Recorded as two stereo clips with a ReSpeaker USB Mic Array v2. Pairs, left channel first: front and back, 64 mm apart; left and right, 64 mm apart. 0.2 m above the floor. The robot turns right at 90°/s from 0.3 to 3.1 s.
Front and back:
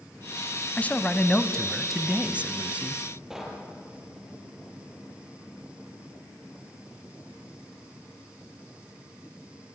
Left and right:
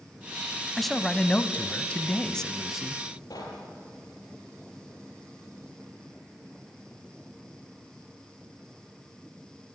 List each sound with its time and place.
0.8 s a man speaking: 5° left, 1.0 m; by 3.0 s 155° right, 1.0 m
3.3 s knocking: 95° left, 5 m